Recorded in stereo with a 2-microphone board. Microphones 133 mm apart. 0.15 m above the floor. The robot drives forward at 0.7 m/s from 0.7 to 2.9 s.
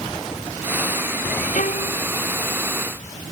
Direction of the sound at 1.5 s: 60° left (ahead or behind).